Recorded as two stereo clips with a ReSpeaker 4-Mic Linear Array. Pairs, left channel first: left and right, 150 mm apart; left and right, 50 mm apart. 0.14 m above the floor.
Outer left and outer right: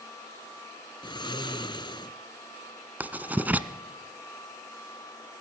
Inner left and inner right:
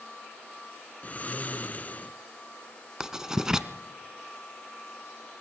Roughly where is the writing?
Centre.